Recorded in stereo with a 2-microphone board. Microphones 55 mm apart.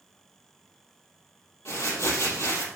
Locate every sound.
1.6 s crumpling: 60° left (ahead or behind), 3.5 m